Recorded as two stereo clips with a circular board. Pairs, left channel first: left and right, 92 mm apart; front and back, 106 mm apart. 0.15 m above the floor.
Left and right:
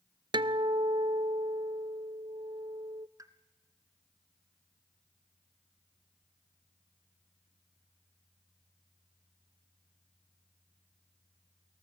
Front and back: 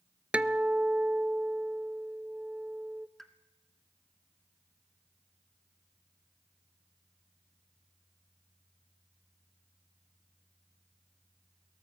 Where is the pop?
85° right, 1.6 m.